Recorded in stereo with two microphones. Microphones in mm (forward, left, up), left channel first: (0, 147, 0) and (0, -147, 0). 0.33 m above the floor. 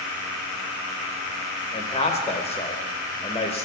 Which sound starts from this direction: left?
A man speaking, at 1.7 s.